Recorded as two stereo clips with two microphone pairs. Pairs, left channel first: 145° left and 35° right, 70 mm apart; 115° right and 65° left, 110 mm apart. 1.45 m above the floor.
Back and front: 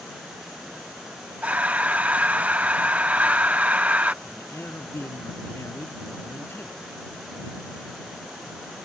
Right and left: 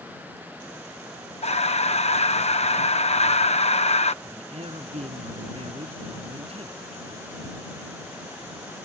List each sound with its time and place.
1.4 s breathing: 100° right
4.2 s a man speaking: 90° left